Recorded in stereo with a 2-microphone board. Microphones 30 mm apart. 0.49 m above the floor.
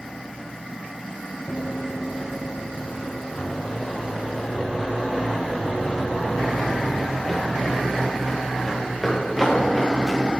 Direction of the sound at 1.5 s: 30° left (ahead or behind).